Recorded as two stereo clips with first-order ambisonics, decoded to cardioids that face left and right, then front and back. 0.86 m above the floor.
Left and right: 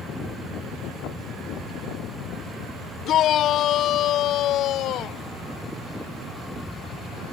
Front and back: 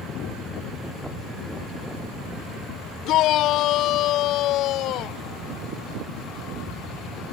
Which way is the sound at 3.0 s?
40° left.